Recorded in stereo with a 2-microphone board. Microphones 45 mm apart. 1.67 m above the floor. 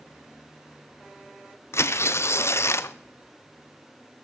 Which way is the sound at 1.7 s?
70° left (ahead or behind).